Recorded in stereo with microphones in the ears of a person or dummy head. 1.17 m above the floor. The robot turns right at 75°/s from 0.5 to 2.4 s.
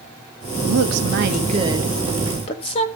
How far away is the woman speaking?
About 1.5 m.